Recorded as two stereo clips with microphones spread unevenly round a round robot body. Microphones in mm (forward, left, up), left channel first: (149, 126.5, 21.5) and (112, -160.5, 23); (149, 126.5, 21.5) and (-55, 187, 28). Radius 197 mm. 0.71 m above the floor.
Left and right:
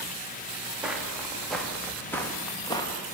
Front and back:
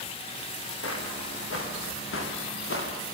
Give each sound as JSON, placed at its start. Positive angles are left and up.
{"t": 0.8, "sound": "footsteps", "azimuth_deg": -10, "distance_m": 7.5}